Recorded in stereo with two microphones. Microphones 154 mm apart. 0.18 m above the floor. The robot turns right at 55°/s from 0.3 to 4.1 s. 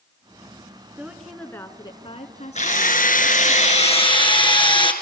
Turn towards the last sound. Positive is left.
turn(degrees=145)